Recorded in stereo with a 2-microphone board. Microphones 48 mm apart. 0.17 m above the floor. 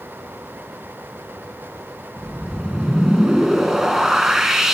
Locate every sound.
2.2 s a whoosh: 10° right (ahead or behind), 0.8 m